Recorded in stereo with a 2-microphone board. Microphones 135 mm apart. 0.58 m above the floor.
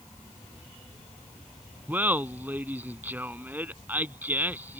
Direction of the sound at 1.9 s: 15° right (ahead or behind).